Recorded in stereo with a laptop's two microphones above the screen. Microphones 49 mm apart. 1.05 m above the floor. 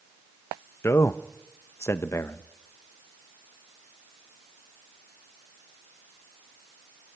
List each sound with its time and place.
0.8 s a man speaking: 60° left (ahead or behind), 0.6 m